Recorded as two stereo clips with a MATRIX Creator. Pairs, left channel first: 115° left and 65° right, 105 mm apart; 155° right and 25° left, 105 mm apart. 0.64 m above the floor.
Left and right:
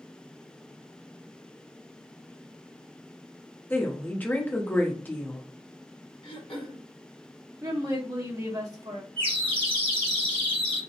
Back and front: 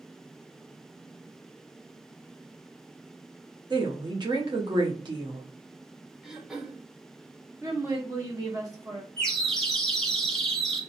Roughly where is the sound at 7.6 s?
Ahead.